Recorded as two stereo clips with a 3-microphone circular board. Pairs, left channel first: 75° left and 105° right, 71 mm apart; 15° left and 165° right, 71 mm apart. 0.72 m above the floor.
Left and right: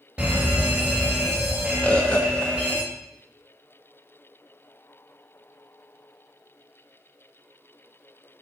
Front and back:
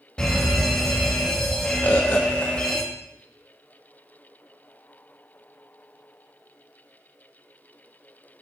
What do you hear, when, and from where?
0.2 s a fire alarm: 50° right, 1.6 m
1.8 s a bird: 30° left, 0.9 m